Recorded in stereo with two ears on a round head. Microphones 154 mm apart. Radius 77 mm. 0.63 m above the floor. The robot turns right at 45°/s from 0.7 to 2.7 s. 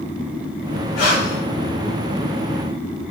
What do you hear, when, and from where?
1.0 s breathing: 60° left (ahead or behind), 2 m; by 1.4 s 45° left (ahead or behind), 2 m